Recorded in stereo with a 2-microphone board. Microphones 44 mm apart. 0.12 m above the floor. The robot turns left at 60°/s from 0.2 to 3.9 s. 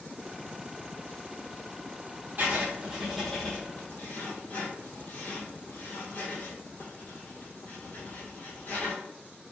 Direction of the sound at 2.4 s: 45° right (ahead or behind).